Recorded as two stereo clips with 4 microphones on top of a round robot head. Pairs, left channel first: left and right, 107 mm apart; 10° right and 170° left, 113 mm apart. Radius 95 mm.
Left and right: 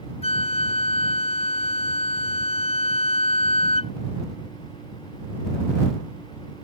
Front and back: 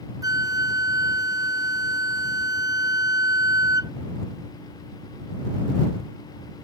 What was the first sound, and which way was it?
A flute, 115° left.